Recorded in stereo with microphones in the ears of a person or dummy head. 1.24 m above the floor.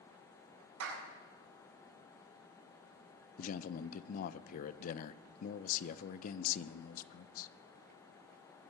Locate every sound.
0.8 s a clap: 85° right, 6.5 m
3.4 s a man speaking: 50° left (ahead or behind), 0.6 m